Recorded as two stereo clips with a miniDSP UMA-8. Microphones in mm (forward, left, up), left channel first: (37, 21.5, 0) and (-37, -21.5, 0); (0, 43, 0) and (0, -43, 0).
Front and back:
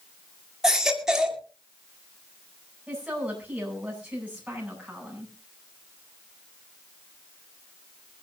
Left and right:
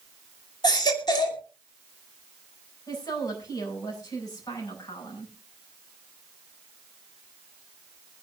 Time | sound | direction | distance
0.6 | a baby crying | 125° left | 2.5 m
2.9 | a woman speaking | 135° left | 9 m